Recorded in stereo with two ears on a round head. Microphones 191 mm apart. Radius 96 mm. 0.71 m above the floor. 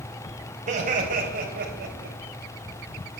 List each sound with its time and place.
0.7 s laughter: 40° right (ahead or behind), 4.5 m; by 2.2 s 55° right (ahead or behind), 4 m